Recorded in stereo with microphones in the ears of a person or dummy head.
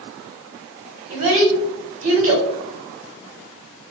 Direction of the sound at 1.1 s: 40° right (ahead or behind).